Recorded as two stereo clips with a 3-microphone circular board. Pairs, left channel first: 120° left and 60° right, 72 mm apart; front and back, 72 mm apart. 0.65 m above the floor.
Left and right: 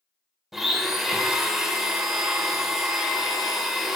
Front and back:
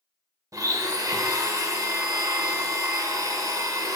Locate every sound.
0.5 s a blender: 145° right, 0.6 m